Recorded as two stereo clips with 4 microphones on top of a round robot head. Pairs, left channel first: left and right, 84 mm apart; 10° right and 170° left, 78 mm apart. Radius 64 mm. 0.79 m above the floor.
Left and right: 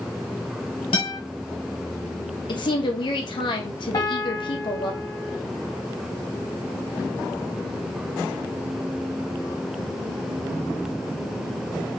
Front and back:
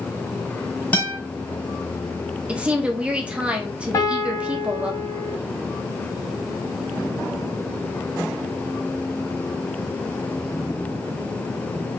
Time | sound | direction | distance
0.9 | a guitar | 65° left | 1.5 m
2.5 | a woman speaking | 100° left | 1.1 m
3.9 | a piano | 35° left | 1.1 m